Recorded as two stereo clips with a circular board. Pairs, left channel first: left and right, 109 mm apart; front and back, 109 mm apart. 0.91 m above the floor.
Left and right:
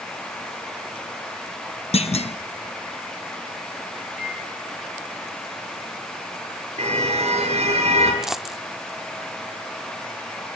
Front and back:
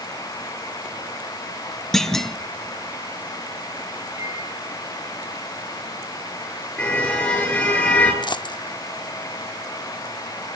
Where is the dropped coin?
5° right, 0.5 m.